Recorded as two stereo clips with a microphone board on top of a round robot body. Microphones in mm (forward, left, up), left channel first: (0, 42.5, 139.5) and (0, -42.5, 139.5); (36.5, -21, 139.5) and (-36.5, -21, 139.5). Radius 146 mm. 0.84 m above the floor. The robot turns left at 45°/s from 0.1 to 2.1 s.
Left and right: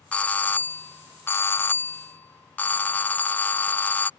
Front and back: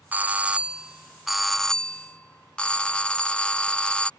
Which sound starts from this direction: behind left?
A doorbell, at 0.1 s.